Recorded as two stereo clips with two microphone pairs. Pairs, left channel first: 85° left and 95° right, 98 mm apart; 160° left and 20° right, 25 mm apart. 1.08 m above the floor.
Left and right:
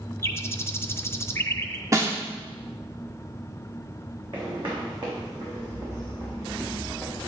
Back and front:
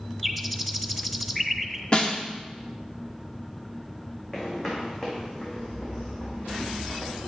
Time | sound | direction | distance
0.2 | a bird | 80° left | 0.9 m
1.9 | a snare drum | 150° right | 1.3 m
4.3 | footsteps | 130° right | 4.5 m